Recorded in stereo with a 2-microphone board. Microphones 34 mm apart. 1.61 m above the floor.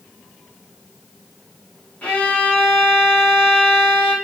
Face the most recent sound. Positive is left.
turn(degrees=45)  # may be behind; listen again after turning